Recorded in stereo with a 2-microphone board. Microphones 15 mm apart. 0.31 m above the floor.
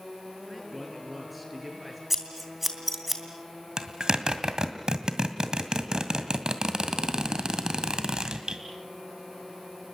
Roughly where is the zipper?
Right.